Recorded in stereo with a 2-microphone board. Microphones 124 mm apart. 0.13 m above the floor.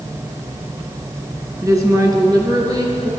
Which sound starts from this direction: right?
A woman speaking, at 1.6 s.